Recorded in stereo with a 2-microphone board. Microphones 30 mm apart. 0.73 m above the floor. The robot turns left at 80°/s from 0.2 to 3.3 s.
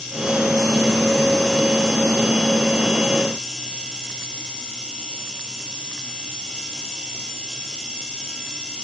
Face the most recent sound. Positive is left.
No sound to turn to.